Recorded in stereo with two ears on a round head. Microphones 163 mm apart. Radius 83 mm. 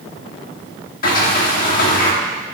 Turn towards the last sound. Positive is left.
turn(degrees=50)  # may be behind; listen again after turning